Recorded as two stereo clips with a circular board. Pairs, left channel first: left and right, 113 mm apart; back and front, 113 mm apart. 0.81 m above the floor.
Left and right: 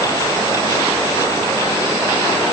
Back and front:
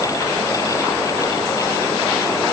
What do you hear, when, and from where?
Only background noise.